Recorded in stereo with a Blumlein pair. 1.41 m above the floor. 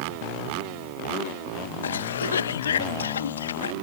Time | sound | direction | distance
1.8 | a cough | 70° left | ?